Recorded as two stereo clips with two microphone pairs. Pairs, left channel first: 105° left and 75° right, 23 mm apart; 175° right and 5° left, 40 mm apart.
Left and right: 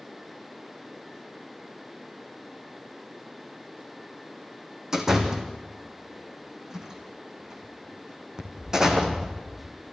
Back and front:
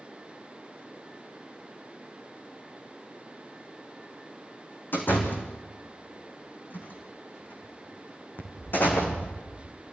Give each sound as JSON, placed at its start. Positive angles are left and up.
{"t": 4.9, "sound": "a door slam", "azimuth_deg": -145, "distance_m": 3.5}